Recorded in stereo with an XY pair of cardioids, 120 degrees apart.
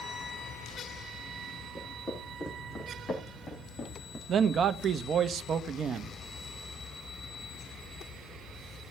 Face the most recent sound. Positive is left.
turn(degrees=-45)